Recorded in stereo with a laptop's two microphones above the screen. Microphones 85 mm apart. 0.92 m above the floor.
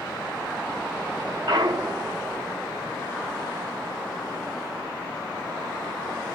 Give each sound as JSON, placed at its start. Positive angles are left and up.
{"t": 1.5, "sound": "a clunk", "side_deg": -60, "distance_m": 0.6}